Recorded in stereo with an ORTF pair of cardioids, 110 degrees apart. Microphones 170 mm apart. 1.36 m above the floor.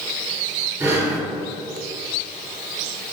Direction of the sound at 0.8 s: 20° right.